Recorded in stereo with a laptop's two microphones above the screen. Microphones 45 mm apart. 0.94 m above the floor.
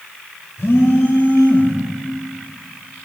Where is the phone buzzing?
70° left (ahead or behind), 2.0 m.